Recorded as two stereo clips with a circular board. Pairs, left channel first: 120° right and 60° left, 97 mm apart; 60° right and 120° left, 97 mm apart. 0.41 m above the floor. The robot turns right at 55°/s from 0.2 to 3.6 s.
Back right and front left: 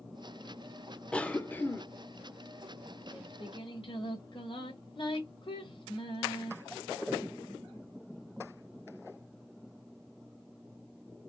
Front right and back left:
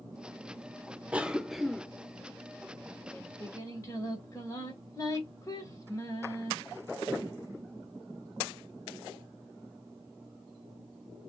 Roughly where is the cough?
Behind.